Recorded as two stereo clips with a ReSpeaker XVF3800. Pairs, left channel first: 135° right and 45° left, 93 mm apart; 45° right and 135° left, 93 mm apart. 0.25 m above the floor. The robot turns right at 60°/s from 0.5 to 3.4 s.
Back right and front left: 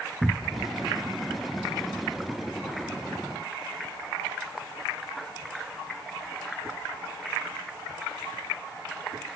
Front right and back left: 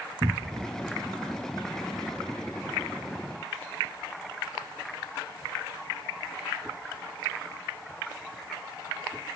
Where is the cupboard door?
120° left; by 0.7 s 130° left.